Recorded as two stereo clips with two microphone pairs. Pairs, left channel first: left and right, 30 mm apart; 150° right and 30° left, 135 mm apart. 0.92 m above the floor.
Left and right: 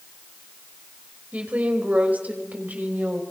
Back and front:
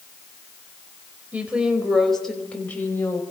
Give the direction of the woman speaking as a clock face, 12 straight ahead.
2 o'clock.